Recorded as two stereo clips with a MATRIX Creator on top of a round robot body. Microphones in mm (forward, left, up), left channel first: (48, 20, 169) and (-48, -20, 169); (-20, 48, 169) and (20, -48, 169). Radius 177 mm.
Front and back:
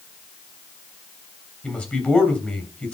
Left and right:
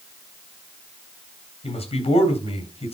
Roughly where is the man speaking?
Left.